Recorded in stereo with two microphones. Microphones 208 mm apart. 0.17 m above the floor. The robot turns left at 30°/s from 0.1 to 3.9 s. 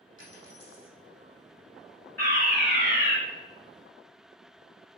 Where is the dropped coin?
65° left (ahead or behind), 3.5 m; by 1.0 s 45° left (ahead or behind), 3.5 m.